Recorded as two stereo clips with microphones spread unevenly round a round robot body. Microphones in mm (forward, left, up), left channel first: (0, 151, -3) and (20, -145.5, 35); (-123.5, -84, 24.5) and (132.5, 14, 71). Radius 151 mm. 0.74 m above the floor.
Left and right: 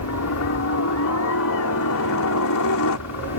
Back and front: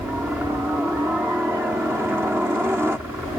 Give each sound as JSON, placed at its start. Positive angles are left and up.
{"t": 0.0, "sound": "a helicopter", "azimuth_deg": 110}